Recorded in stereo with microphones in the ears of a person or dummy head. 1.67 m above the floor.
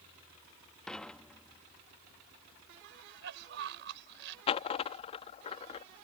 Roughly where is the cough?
Right.